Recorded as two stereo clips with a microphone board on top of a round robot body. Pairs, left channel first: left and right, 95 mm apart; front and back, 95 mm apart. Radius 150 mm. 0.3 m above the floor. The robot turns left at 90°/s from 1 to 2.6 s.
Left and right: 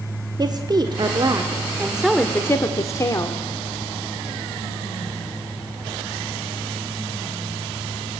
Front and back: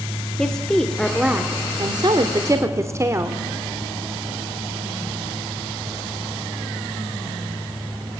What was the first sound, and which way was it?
A woman speaking, 80° right.